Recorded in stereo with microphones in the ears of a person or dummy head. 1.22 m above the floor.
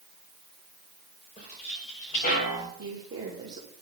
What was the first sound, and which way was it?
Footsteps, 40° left (ahead or behind).